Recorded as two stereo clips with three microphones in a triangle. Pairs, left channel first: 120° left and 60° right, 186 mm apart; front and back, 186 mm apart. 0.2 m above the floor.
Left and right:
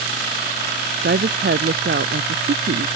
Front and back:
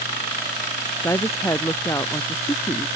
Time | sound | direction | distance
1.0 | a woman speaking | 75° right | ?